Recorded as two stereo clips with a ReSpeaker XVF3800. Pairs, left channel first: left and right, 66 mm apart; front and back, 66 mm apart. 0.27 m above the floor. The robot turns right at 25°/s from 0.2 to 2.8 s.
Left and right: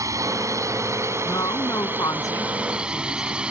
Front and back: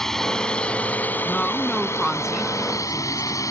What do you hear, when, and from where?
0.0 s a drone: 80° right; by 3.5 s 15° right
1.2 s a woman speaking: 70° left; by 3.4 s 110° left